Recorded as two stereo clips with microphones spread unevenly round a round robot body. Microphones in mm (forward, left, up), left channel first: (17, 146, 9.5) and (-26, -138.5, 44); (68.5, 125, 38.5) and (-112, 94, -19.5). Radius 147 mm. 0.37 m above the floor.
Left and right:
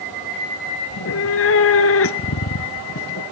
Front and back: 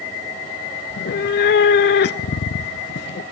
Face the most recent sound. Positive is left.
turn(degrees=35)